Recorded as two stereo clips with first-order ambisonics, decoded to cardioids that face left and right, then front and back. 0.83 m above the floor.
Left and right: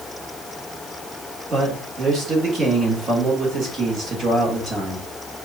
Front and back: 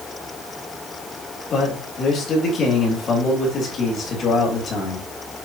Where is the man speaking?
40° right, 1.2 m.